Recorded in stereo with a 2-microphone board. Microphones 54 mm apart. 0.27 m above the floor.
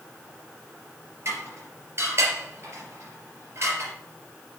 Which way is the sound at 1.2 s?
50° right (ahead or behind).